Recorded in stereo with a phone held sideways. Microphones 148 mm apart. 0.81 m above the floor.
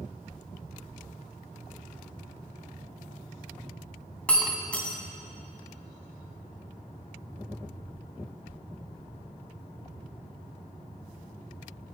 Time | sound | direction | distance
4.3 | breaking glass | 10° left (ahead or behind) | 2.5 m